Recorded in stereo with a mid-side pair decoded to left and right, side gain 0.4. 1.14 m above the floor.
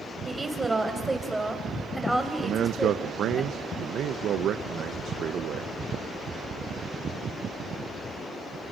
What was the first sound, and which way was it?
A woman speaking, 25° right.